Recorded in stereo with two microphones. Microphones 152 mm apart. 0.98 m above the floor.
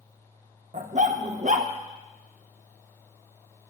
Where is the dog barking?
55° right (ahead or behind), 0.7 m.